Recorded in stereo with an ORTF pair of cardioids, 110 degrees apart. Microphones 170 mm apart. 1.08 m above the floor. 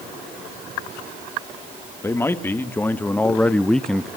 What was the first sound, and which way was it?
A man speaking, 15° left.